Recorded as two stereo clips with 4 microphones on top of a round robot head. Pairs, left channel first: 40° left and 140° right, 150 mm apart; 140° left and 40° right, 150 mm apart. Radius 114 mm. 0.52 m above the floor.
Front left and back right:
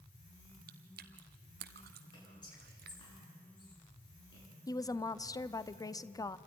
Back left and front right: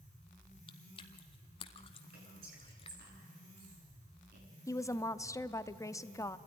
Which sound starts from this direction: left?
A woman speaking, at 4.7 s.